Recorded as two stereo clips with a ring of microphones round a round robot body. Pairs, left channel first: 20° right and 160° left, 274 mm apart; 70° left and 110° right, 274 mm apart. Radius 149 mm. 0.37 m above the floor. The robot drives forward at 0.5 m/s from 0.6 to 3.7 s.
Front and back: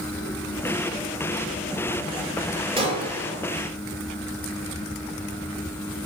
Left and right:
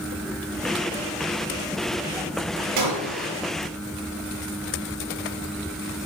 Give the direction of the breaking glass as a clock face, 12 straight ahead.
4 o'clock.